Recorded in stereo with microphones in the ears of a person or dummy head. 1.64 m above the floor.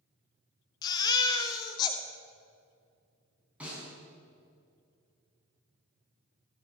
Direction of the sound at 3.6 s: 5° right (ahead or behind).